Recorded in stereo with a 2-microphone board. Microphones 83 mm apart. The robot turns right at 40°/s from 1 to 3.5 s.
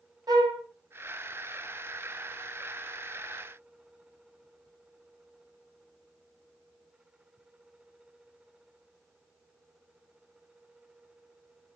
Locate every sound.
0.3 s a flute: 50° right (ahead or behind), 1.2 m